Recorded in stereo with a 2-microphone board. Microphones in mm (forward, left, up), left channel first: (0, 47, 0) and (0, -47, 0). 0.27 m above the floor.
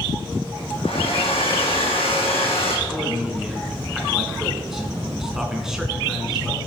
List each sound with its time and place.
0.8 s a hair dryer: 75° left (ahead or behind), 4 m
2.9 s a man speaking: 5° right (ahead or behind), 3 m